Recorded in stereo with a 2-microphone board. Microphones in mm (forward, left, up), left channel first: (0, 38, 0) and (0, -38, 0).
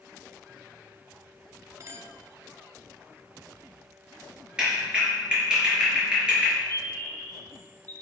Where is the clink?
40° right (ahead or behind), 0.9 m.